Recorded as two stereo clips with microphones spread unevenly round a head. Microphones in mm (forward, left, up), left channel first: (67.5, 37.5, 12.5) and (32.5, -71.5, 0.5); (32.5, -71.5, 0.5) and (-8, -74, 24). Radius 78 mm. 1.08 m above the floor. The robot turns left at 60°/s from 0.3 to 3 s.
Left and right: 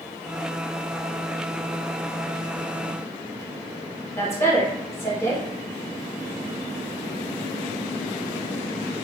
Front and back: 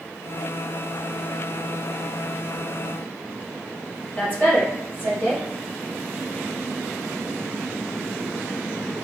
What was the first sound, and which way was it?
A woman speaking, 5° left.